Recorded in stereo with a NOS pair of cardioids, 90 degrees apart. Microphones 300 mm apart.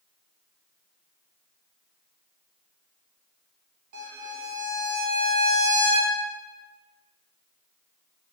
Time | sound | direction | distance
3.9 | a violin | 70° right | 0.9 m